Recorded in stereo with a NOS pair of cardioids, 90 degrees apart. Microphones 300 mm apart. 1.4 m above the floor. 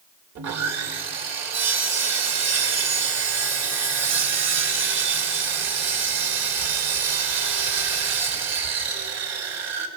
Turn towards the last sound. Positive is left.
turn(degrees=-60)